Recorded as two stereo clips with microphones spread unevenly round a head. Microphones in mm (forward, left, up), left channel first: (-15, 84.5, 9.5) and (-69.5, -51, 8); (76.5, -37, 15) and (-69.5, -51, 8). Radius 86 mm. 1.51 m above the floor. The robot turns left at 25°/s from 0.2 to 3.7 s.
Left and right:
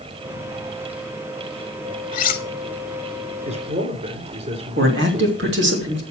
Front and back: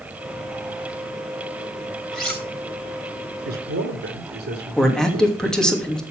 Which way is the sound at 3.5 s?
150° right.